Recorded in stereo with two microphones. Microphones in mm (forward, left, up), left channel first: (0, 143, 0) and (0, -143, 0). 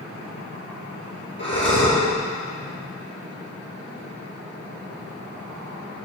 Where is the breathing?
40° left (ahead or behind), 4 m.